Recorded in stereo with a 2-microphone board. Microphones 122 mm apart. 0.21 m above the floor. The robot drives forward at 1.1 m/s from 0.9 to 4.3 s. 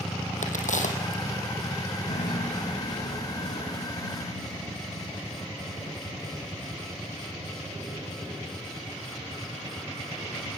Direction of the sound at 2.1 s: 75° left (ahead or behind).